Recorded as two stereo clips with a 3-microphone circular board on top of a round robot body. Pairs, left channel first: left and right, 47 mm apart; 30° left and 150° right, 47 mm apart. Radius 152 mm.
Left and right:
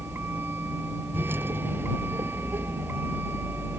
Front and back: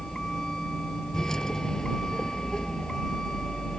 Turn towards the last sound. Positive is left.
turn(degrees=-50)